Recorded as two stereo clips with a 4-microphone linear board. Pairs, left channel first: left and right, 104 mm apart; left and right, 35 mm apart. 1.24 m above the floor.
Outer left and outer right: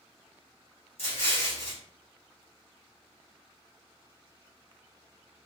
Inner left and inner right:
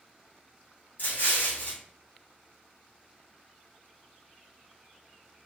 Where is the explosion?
65° left (ahead or behind), 1.1 m.